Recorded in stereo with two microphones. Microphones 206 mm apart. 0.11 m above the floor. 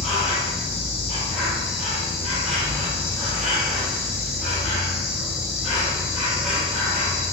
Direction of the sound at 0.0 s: Centre (ahead or behind).